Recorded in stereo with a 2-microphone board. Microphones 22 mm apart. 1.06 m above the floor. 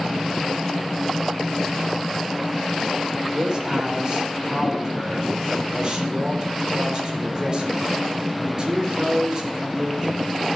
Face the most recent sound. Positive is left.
turn(degrees=-35)  # may be behind; listen again after turning